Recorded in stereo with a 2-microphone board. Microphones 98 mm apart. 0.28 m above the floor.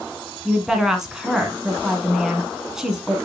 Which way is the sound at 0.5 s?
5° right (ahead or behind).